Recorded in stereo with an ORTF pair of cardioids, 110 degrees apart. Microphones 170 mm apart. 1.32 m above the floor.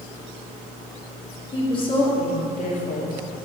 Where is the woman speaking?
25° left, 2.5 m; by 3.2 s 60° left, 2.5 m.